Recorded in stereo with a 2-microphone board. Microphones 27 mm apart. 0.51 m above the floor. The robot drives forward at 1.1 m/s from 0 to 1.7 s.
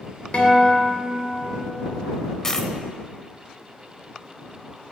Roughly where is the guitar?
Left.